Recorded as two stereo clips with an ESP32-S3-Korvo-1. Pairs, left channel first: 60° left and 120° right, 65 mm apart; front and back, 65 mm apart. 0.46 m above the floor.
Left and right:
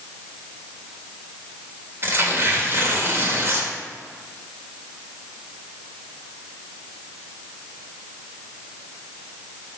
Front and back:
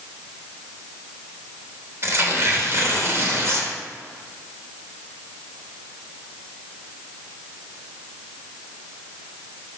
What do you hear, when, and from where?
2.0 s tearing paper: 155° right, 1.2 m